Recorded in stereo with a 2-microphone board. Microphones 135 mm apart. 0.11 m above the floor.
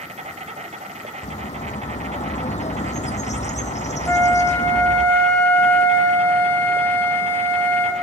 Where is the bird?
60° left (ahead or behind), 0.8 m.